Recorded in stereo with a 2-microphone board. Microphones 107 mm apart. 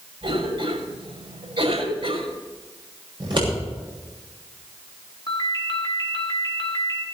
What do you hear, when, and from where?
0.2 s a cough: 70° right (ahead or behind), 6 m
3.2 s scissors: 50° right (ahead or behind), 6.5 m
5.3 s a ringtone: 40° left (ahead or behind), 3 m